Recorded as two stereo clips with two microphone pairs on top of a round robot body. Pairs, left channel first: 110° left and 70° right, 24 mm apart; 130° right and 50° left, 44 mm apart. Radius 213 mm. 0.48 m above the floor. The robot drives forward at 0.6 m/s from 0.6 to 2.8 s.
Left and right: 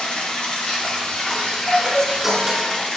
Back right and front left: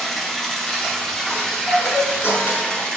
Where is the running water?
145° left, 3 m; by 3.0 s 155° left, 4 m.